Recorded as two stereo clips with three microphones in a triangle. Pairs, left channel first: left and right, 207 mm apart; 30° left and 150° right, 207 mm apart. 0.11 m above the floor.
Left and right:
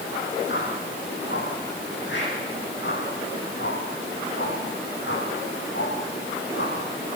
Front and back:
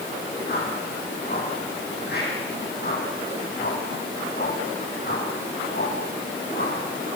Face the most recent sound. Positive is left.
turn(degrees=65)